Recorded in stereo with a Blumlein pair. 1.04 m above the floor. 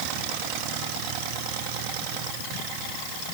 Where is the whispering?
I don't hear whispering.